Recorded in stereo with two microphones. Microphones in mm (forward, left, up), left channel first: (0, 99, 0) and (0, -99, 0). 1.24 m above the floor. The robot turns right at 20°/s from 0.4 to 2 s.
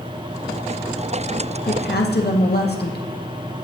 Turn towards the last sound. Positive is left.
turn(degrees=60)  # may be behind; listen again after turning